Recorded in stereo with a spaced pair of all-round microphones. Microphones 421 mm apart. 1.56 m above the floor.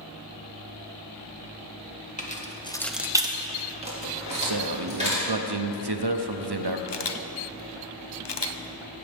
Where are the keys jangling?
15° left (ahead or behind), 1.1 m; by 5.2 s 15° right (ahead or behind), 3.5 m.